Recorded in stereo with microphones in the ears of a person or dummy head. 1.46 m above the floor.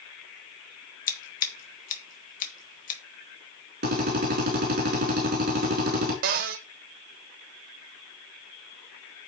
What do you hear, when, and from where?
1.1 s scissors: 50° left (ahead or behind), 2 m
3.8 s a drill: 45° right (ahead or behind), 4.5 m
6.2 s a cupboard door: 40° right (ahead or behind), 0.6 m